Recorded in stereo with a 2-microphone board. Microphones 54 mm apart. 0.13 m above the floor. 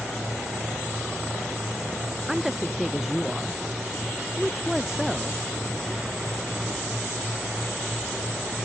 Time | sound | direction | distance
2.3 | a woman speaking | 5° right (ahead or behind) | ?